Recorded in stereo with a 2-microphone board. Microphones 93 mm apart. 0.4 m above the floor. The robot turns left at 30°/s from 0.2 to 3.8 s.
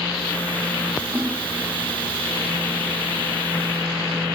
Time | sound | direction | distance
1.1 | a splash | 20° right (ahead or behind) | 9 m